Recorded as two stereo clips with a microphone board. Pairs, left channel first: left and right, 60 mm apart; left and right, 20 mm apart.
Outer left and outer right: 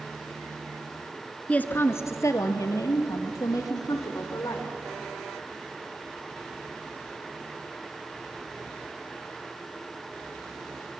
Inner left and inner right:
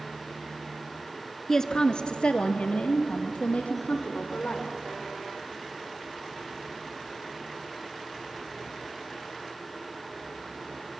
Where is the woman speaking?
20° left (ahead or behind), 1.1 m; by 4.7 s 80° left, 5 m.